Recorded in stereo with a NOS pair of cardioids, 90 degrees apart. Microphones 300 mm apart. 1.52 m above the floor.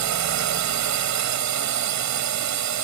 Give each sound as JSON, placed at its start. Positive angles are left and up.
{"t": 0.0, "sound": "a drone", "azimuth_deg": -70}